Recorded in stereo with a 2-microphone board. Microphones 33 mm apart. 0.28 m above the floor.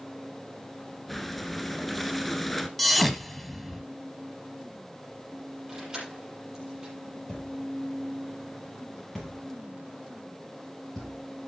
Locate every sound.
1.1 s breathing: centre (ahead or behind), 1.1 m
2.8 s a thud: centre (ahead or behind), 1.0 m
5.7 s keys jangling: 25° right (ahead or behind), 5.5 m
7.3 s a thud: 10° left (ahead or behind), 5.5 m